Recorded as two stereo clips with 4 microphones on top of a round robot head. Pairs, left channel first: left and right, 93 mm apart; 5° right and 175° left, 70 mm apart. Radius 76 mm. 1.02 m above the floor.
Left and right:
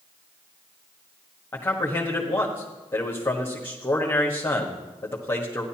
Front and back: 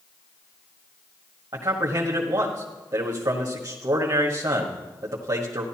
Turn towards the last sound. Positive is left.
turn(degrees=155)